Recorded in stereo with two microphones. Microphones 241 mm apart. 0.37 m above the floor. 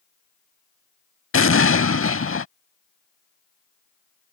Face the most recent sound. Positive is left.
turn(degrees=60)  # may be behind; listen again after turning